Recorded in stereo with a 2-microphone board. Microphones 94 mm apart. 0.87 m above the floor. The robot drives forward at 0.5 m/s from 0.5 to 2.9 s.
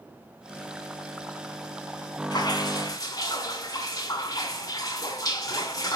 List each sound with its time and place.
2.3 s dripping: 45° left (ahead or behind), 1.6 m; by 6.0 s 40° left (ahead or behind), 1.8 m